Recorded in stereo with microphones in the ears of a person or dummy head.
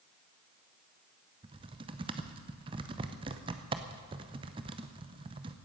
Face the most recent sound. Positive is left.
turn(degrees=-25)  # may be behind; listen again after turning